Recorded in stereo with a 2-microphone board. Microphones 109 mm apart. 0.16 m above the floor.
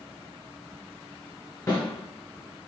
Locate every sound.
1.7 s a snare drum: 30° left (ahead or behind), 1.8 m